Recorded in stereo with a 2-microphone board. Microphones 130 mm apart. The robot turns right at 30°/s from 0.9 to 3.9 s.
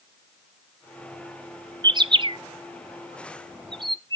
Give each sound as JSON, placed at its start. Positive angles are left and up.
{"t": 1.8, "sound": "a bird", "side_deg": -30, "distance_m": 0.5}